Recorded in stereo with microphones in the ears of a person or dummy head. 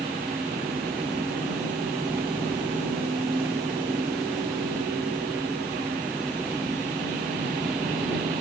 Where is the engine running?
10° right (ahead or behind).